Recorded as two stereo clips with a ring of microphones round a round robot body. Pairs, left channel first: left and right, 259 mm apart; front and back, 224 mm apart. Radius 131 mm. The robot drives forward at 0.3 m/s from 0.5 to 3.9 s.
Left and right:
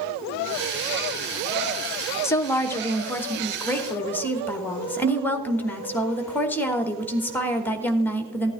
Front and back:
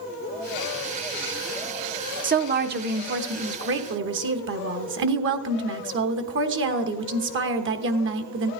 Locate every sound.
2.2 s a woman speaking: 165° left, 0.9 m; by 8.5 s 170° left, 1.2 m